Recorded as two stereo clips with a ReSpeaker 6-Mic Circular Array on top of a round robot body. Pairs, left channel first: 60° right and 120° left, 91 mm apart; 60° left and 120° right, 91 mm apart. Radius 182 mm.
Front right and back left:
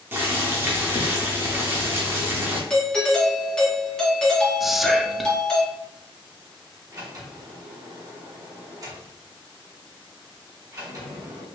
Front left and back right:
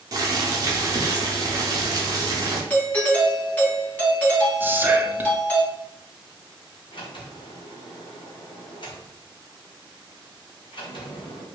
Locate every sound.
0.1 s boiling: 175° right, 0.6 m
2.7 s a doorbell: 10° left, 1.8 m
4.6 s whispering: 155° right, 0.7 m
6.9 s a sliding door: 70° left, 1.6 m